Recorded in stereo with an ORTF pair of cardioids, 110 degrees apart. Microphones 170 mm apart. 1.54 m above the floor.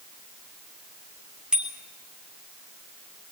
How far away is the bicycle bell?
About 3.5 m.